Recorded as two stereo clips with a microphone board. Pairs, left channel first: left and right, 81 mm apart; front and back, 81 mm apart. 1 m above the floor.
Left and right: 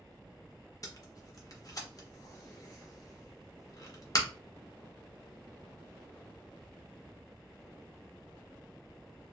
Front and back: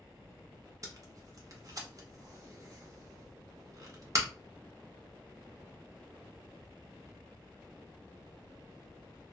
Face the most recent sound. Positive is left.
turn(degrees=135)